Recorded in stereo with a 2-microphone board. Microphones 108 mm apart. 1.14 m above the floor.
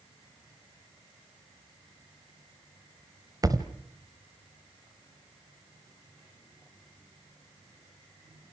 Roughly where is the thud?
Right.